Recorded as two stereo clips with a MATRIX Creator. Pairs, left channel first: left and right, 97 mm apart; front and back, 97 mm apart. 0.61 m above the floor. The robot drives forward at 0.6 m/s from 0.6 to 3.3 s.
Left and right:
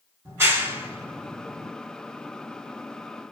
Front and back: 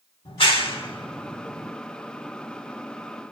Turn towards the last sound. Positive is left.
turn(degrees=-60)